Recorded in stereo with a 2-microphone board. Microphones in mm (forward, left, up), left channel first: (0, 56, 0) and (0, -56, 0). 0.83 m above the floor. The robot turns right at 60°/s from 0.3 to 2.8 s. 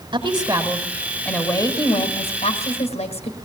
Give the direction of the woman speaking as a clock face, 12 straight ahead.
2 o'clock.